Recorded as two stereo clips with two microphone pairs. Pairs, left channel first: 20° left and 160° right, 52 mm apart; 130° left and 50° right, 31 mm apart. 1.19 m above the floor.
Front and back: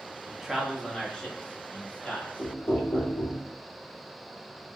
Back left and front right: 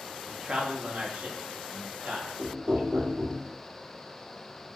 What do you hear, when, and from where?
0.3 s a man speaking: 100° right, 0.5 m; by 3.1 s 35° right, 2.0 m
2.4 s knocking: 25° right, 1.1 m